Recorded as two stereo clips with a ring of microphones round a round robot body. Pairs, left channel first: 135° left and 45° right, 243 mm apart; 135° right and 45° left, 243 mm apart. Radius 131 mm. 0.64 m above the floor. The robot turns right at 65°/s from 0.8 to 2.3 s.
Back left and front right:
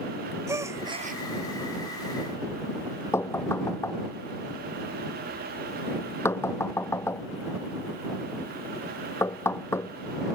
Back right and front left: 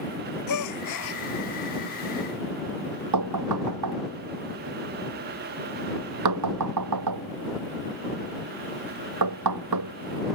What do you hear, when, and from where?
0.5 s a gasp: 125° right; by 1.2 s 95° right
3.1 s knocking: 55° left